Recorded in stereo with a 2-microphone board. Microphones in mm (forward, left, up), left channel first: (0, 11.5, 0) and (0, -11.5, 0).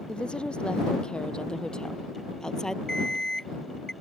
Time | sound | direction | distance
0.1 | a woman speaking | 50° left (ahead or behind) | ?
2.9 | an alarm clock | 25° left (ahead or behind) | ?